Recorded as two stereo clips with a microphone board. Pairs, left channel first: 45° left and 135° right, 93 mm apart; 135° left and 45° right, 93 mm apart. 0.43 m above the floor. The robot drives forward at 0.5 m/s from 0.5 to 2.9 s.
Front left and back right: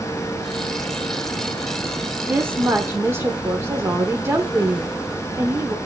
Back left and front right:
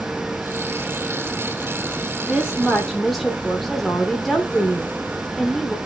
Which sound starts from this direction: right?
A woman speaking, at 2.2 s.